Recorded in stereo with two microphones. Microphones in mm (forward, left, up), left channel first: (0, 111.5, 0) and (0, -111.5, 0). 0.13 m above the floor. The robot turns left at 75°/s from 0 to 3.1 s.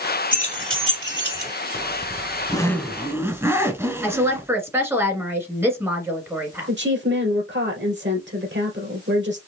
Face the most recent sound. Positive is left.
turn(degrees=-55)  # may be behind; listen again after turning